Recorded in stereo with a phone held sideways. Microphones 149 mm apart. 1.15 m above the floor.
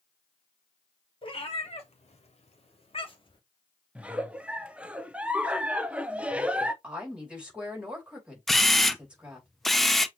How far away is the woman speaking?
About 2.5 m.